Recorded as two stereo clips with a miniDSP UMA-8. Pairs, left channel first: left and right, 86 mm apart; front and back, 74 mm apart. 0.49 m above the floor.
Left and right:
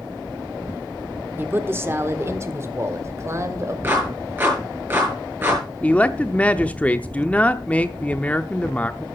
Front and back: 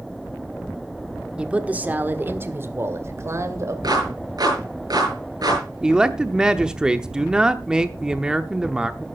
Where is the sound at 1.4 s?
120° right, 1.2 m; by 3.7 s 140° right, 2.5 m.